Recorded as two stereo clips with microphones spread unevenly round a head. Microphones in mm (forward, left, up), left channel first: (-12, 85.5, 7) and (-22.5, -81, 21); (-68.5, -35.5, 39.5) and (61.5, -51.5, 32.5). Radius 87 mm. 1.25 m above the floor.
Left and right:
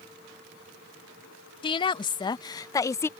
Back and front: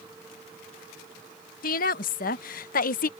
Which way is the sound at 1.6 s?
145° left.